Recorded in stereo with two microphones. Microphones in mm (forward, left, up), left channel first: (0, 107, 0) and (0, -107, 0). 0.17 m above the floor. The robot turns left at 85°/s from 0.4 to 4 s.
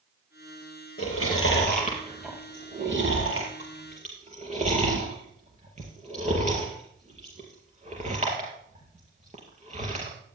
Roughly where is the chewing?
Left.